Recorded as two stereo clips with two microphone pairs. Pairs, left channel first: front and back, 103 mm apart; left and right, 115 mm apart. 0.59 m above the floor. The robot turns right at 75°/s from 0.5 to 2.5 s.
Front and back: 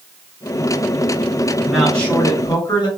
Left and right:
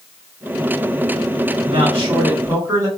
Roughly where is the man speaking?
Right.